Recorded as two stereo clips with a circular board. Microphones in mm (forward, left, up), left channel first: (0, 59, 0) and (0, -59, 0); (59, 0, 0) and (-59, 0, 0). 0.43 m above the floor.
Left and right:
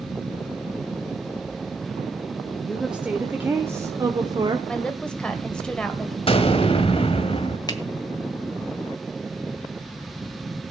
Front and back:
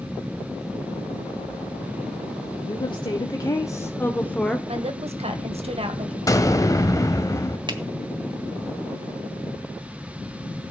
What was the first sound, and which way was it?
A woman speaking, 5° right.